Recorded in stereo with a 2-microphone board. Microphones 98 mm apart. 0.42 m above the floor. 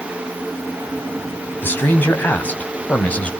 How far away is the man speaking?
About 3.5 m.